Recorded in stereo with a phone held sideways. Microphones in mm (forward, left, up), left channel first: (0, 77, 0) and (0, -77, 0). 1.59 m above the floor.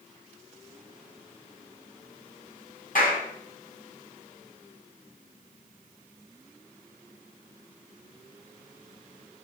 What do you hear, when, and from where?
3.0 s a clap: 60° left (ahead or behind), 8.5 m